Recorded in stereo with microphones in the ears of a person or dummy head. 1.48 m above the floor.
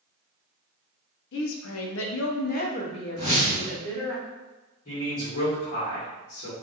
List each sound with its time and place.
1.3 s a woman speaking: 70° left (ahead or behind), 0.7 m; by 4.2 s 10° left (ahead or behind), 1.3 m
3.2 s a whoosh: 55° left (ahead or behind), 1.9 m
4.8 s a man speaking: 45° left (ahead or behind), 1.6 m